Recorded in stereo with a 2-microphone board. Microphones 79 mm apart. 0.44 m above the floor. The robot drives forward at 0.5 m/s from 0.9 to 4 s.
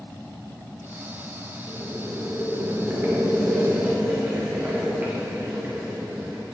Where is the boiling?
40° right (ahead or behind), 2.5 m; by 6.4 s 30° right (ahead or behind), 3.5 m.